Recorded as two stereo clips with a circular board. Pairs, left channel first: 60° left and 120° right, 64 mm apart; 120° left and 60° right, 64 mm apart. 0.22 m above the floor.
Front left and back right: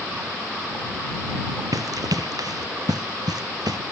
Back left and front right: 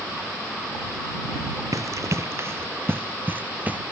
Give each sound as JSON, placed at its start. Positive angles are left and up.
{"t": 1.7, "sound": "running footsteps", "azimuth_deg": -95}